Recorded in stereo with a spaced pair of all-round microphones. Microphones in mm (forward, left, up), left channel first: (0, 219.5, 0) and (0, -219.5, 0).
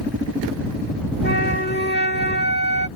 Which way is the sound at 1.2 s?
25° left (ahead or behind).